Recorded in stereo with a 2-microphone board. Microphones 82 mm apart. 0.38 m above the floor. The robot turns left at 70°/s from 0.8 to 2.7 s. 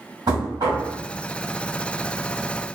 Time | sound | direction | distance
0.3 | knocking | 60° right (ahead or behind) | 1.8 m